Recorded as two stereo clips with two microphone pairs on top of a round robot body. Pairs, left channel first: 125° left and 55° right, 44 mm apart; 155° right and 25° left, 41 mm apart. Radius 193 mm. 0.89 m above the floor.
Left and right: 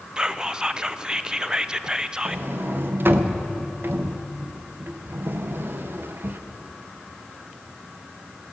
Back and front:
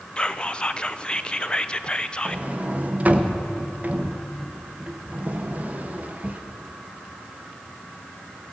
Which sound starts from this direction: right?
Whispering, at 0.2 s.